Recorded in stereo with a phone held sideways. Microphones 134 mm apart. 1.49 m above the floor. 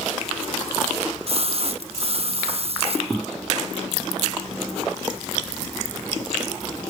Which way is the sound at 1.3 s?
50° right (ahead or behind).